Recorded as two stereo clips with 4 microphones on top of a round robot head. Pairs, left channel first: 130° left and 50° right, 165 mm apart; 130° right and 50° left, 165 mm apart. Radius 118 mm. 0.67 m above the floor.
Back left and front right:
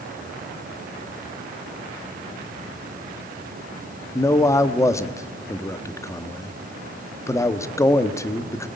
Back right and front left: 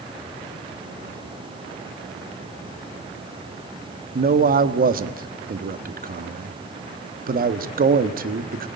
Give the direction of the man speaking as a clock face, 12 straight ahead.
10 o'clock.